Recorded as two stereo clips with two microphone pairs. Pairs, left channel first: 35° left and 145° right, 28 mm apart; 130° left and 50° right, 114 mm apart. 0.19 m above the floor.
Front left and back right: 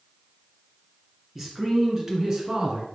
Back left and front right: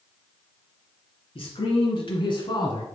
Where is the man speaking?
145° left, 2.5 m; by 2.9 s 170° left, 2 m.